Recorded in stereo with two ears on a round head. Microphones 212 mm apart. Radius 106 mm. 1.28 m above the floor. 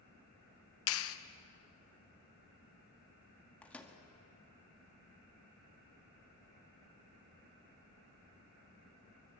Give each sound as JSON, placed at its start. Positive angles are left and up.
{"t": 0.9, "sound": "a clap", "side_deg": 60, "distance_m": 1.1}
{"t": 3.6, "sound": "a microwave", "side_deg": 5, "distance_m": 1.8}